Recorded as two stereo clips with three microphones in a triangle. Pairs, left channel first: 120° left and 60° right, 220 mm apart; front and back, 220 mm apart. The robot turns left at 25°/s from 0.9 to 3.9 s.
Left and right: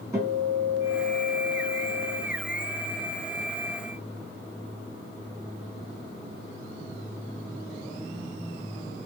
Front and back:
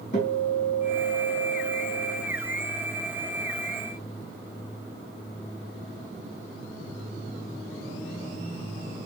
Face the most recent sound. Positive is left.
turn(degrees=-65)